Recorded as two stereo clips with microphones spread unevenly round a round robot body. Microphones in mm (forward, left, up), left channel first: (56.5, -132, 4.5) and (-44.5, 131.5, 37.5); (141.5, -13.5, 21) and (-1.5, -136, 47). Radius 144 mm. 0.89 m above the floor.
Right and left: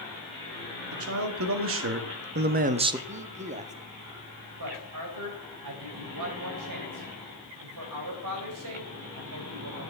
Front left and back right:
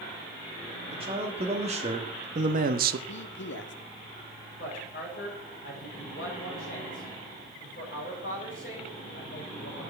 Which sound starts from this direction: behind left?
A man speaking, at 0.9 s.